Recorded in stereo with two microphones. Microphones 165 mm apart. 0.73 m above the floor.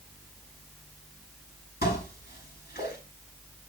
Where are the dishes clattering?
80° left, 6.5 m.